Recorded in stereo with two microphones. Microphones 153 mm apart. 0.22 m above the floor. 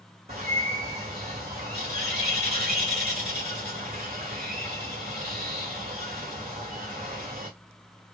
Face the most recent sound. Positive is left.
turn(degrees=-45)  # may be behind; listen again after turning